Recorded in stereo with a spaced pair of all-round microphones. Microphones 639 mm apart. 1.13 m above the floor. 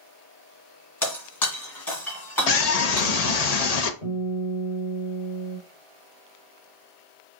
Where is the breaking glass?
30° left (ahead or behind), 2 m.